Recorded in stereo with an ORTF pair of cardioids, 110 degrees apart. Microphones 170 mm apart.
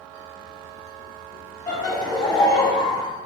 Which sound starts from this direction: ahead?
Laughter, at 1.7 s.